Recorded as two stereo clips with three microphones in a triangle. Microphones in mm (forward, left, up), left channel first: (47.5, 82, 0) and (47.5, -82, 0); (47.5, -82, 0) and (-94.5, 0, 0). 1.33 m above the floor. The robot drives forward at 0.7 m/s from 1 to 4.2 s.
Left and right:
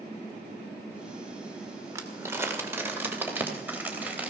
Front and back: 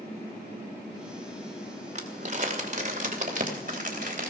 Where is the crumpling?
165° right, 2 m; by 4.3 s 170° right, 3.5 m.